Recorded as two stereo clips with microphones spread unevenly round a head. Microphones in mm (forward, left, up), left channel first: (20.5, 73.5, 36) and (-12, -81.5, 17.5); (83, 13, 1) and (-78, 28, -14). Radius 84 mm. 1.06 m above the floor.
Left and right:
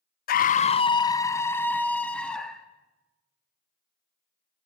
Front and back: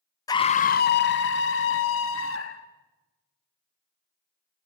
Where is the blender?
No blender in this recording.